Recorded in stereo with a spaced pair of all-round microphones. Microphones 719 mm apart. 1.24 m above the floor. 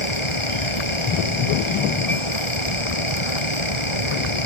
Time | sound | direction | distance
0.0 | a fan | 40° left (ahead or behind) | ?